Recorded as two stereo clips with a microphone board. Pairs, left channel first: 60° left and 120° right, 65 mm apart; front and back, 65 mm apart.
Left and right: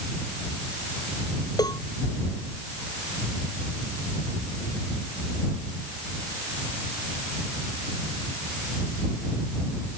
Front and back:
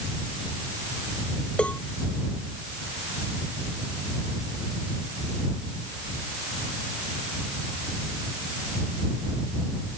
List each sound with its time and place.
1.6 s a cowbell: 75° left